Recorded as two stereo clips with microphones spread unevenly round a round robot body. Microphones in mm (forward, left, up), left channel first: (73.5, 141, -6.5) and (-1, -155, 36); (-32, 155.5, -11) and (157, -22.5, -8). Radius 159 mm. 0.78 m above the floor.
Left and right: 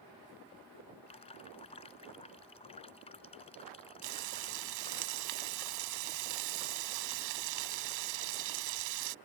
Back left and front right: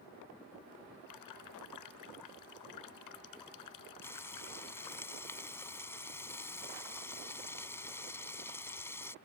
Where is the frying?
140° right.